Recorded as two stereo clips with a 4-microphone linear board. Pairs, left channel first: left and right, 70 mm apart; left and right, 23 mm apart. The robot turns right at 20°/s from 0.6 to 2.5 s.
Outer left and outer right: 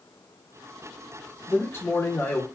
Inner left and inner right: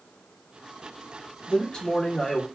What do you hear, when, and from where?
1.5 s a man speaking: 30° left (ahead or behind), 1.1 m; by 2.5 s 35° left (ahead or behind), 1.1 m